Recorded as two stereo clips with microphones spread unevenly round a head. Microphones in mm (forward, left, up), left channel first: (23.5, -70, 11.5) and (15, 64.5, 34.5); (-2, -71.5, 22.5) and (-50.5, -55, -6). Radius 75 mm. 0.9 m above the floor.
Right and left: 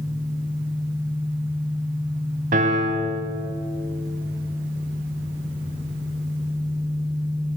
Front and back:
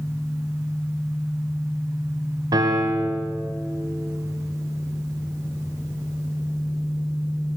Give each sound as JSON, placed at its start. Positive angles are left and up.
{"t": 2.5, "sound": "a piano", "azimuth_deg": 135, "distance_m": 2.5}